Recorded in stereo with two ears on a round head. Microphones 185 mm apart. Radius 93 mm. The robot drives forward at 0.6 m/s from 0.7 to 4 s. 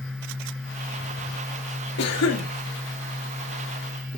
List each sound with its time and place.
2.0 s a cough: 50° left (ahead or behind), 1.4 m; by 2.5 s 60° left (ahead or behind), 1.2 m